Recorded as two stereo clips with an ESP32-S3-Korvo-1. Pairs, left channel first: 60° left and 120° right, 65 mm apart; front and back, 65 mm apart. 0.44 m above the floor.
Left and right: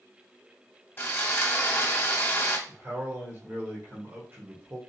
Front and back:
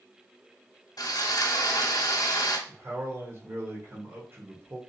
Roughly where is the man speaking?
Behind right.